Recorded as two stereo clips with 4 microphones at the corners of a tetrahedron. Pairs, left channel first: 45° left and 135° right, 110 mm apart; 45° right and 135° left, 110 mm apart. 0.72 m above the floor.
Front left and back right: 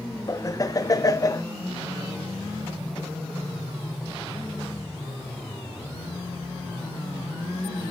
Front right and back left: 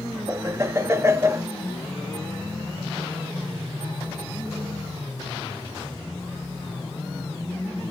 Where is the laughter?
85° left, 0.7 m.